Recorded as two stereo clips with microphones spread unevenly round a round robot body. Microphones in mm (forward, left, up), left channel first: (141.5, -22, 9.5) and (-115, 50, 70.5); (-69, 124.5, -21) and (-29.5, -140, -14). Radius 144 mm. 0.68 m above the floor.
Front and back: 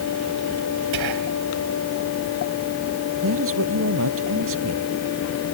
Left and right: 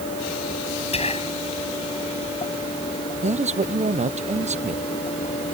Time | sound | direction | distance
0.9 | whispering | 165° left | ?
3.2 | a man speaking | 150° right | ?